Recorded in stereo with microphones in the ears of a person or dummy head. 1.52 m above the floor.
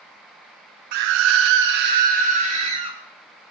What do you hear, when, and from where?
0.9 s a scream: 50° right (ahead or behind), 0.5 m; by 3.0 s 35° right (ahead or behind), 1.4 m